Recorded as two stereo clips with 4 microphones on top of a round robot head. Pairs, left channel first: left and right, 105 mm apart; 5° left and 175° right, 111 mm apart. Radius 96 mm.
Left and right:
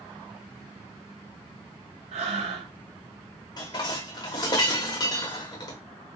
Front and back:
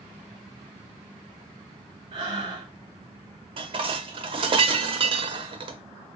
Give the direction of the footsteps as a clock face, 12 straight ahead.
I don't hear footsteps.